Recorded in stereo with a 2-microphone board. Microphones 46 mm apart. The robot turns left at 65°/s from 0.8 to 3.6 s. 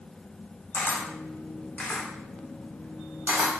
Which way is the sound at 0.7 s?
45° left (ahead or behind).